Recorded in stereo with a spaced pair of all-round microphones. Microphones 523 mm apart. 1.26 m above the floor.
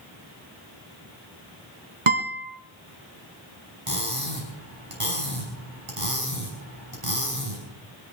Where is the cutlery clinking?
80° right, 5.5 m.